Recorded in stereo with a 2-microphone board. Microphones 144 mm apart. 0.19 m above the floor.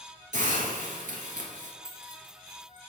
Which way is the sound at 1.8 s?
40° right (ahead or behind).